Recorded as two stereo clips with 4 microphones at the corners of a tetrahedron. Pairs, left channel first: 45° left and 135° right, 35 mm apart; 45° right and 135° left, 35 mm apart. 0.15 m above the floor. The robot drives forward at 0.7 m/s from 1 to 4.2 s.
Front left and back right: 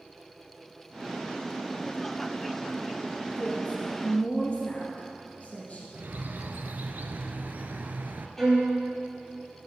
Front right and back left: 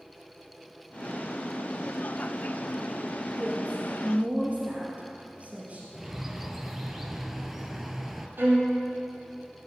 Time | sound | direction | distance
3.4 | a woman speaking | 75° left | 2.5 m
5.9 | a bird | 145° right | 0.8 m
8.4 | a violin | 125° left | 3.5 m